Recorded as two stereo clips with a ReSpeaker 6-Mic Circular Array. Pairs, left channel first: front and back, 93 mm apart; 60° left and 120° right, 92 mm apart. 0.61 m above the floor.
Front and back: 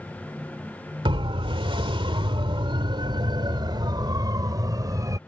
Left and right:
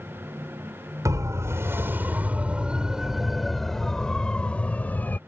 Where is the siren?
170° right; by 5.2 s 130° left.